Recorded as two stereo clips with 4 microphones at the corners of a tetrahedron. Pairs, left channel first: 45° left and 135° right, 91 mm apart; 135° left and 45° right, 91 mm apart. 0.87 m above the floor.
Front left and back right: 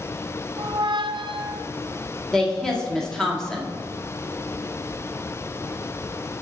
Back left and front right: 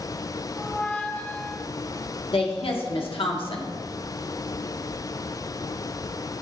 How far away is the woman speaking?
About 1.4 m.